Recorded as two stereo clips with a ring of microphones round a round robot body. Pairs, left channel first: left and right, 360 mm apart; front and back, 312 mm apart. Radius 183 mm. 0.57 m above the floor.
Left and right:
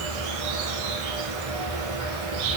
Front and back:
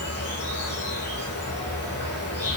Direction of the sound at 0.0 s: 85° right.